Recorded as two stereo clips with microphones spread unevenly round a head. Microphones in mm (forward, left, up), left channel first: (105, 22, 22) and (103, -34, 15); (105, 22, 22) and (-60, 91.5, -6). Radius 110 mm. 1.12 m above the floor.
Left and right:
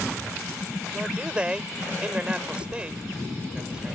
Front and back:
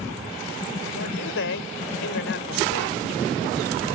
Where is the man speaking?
20° right.